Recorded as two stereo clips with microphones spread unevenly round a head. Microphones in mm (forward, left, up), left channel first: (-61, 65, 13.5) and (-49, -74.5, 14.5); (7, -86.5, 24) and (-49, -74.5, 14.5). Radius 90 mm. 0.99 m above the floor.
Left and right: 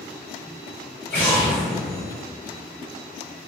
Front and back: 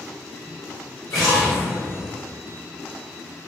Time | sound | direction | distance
1.1 | an explosion | 15° left | 1.7 m